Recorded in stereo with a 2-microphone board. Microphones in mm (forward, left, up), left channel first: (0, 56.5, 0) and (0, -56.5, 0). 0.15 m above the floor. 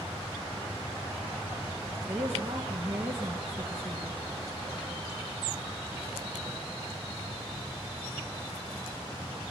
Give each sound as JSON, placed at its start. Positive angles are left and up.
{"t": 2.0, "sound": "a woman speaking", "side_deg": -15, "distance_m": 2.5}